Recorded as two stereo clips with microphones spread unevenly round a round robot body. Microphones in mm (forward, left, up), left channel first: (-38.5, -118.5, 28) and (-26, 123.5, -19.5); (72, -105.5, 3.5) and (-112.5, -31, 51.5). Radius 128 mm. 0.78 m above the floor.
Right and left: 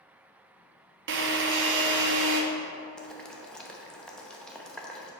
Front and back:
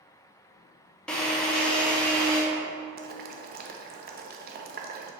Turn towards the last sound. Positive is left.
turn(degrees=165)